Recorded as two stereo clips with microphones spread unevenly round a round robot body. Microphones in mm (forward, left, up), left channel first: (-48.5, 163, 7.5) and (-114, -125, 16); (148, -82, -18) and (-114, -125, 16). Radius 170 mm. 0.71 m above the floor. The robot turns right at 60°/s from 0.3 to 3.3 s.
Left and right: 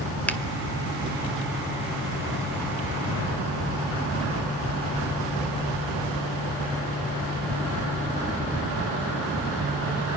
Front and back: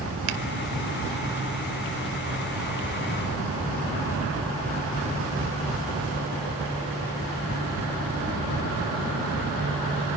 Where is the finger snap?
160° left, 1.3 m; by 0.4 s 165° left, 1.3 m.